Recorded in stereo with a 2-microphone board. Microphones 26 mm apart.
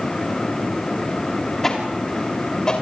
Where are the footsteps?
15° left (ahead or behind), 5 m; by 2.8 s 25° left (ahead or behind), 6.5 m.